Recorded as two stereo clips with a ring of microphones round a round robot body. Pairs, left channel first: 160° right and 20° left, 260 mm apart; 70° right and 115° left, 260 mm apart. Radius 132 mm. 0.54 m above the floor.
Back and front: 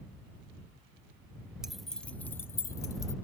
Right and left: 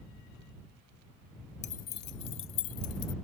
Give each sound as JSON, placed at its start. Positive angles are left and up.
{"t": 1.6, "sound": "keys jangling", "azimuth_deg": -60}